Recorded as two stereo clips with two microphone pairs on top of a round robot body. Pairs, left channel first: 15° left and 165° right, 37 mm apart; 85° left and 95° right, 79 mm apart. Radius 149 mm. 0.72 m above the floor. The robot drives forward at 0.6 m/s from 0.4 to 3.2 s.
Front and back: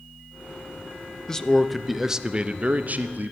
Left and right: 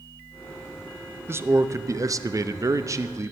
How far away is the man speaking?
About 1.0 m.